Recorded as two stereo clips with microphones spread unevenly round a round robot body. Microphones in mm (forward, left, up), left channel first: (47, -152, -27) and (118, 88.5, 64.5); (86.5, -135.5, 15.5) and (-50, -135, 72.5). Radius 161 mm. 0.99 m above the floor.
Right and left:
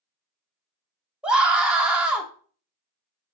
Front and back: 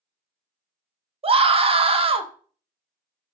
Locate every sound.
1.2 s a scream: 135° right, 0.6 m